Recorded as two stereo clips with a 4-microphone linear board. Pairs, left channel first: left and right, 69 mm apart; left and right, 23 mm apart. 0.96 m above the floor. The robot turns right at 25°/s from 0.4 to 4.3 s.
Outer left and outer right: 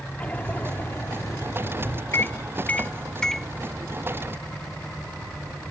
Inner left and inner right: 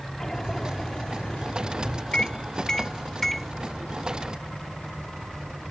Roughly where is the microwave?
Left.